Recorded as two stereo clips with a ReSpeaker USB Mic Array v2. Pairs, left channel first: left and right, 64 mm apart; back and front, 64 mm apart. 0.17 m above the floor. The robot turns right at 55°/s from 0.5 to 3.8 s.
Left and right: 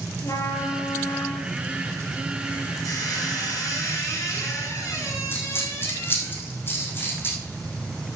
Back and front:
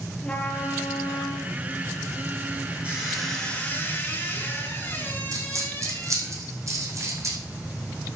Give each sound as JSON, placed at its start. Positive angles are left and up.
{"t": 0.2, "sound": "a trumpet", "azimuth_deg": 110, "distance_m": 2.0}
{"t": 2.8, "sound": "a squeak", "azimuth_deg": 70, "distance_m": 7.0}
{"t": 5.3, "sound": "a dropped coin", "azimuth_deg": 35, "distance_m": 3.5}